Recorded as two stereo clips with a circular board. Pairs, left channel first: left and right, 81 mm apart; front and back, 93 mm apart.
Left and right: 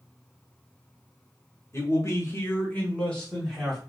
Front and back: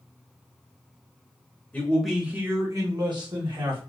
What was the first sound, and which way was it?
A man speaking, 70° left.